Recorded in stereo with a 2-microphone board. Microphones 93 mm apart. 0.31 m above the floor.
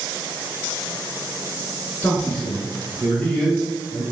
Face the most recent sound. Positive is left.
turn(degrees=10)  # may be behind; listen again after turning